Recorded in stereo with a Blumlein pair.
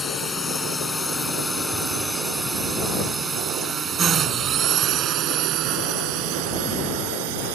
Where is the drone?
15° left; by 7.5 s 50° right.